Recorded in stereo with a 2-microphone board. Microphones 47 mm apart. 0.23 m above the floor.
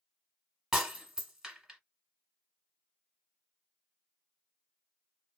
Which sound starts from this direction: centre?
Breaking glass, at 0.7 s.